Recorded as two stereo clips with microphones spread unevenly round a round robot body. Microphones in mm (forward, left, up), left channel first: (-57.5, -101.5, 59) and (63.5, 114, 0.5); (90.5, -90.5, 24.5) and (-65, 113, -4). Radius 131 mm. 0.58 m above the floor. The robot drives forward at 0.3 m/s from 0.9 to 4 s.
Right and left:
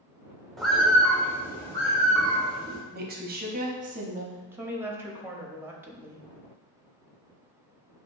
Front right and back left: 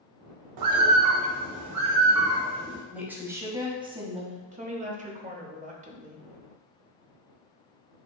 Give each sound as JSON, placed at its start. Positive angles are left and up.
{"t": 0.6, "sound": "a bird", "azimuth_deg": 150, "distance_m": 0.6}
{"t": 2.9, "sound": "a woman speaking", "azimuth_deg": 50, "distance_m": 0.9}
{"t": 4.5, "sound": "a woman speaking", "azimuth_deg": 110, "distance_m": 0.7}